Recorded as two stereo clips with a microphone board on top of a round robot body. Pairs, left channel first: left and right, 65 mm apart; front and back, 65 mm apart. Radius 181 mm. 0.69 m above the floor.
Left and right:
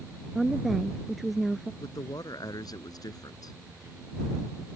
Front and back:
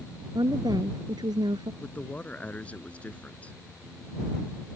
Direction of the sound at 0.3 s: Straight behind.